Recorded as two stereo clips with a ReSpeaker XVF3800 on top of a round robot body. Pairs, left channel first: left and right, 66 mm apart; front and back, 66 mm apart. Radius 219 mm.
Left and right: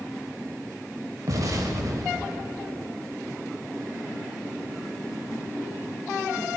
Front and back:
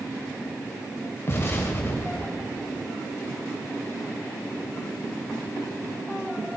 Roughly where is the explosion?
Ahead right.